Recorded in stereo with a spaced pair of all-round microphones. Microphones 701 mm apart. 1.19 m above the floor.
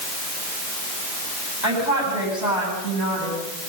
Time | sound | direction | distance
1.6 | a woman speaking | 70° left (ahead or behind) | 9.5 m